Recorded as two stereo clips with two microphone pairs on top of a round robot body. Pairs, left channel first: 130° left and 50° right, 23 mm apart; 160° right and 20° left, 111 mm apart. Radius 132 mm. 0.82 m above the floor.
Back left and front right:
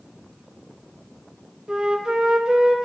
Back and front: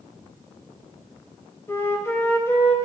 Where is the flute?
90° right, 1.0 m.